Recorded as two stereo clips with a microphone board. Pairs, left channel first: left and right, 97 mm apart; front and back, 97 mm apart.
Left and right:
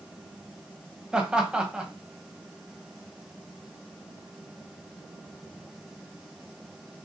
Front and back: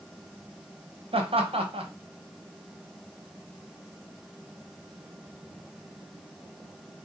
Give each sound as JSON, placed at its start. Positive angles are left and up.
{"t": 1.1, "sound": "laughter", "azimuth_deg": -170, "distance_m": 0.9}